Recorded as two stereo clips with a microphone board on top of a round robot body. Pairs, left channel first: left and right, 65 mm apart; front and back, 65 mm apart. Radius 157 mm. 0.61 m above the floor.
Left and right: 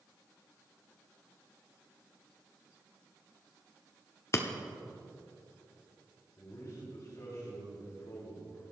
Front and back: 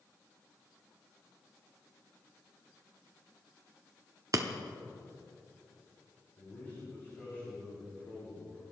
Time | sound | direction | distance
4.3 | breaking glass | 140° left | 0.8 m
6.4 | a man speaking | 55° left | 5 m